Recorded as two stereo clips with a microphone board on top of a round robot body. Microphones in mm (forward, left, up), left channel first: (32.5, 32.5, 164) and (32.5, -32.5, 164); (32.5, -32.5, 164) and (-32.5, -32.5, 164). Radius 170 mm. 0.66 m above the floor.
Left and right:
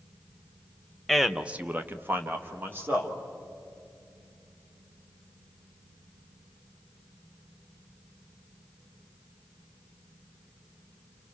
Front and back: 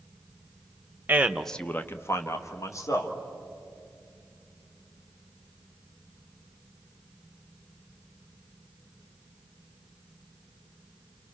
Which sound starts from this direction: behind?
A man speaking, at 1.1 s.